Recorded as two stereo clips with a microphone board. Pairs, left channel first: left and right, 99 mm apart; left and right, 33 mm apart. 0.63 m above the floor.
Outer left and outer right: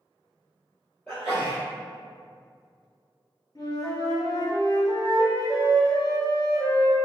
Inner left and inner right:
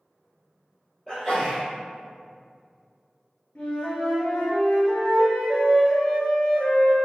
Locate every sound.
1.1 s a sneeze: 10° left (ahead or behind), 1.4 m
3.5 s a flute: 50° left (ahead or behind), 1.5 m